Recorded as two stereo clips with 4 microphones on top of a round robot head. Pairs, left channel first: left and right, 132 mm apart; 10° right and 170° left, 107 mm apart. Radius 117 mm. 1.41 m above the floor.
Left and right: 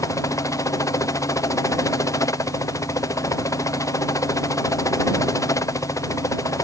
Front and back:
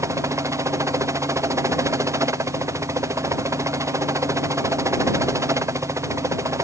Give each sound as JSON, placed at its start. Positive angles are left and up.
{"t": 0.0, "sound": "a helicopter", "azimuth_deg": 135}